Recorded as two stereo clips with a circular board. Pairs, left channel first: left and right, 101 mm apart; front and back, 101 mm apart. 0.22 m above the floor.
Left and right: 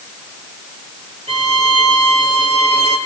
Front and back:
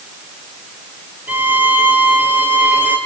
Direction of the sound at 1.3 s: 105° right.